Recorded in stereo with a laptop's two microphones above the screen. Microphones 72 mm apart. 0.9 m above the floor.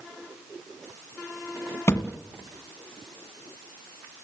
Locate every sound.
1.9 s a thud: 35° left (ahead or behind), 1.4 m